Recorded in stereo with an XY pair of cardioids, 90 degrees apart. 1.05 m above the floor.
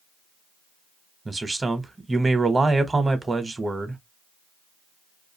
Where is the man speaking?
25° right, 0.9 m.